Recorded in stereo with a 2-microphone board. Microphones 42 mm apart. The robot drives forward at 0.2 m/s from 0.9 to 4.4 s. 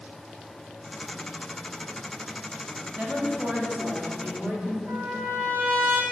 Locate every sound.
3.0 s a woman speaking: 40° right (ahead or behind), 1.3 m; by 4.8 s 35° right (ahead or behind), 1.5 m
4.9 s a trumpet: 55° right (ahead or behind), 1.0 m